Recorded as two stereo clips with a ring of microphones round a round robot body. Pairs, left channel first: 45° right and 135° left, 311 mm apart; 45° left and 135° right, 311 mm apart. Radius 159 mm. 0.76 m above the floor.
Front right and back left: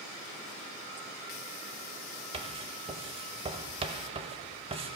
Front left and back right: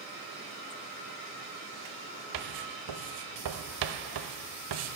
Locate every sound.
2.3 s writing: 155° right, 0.9 m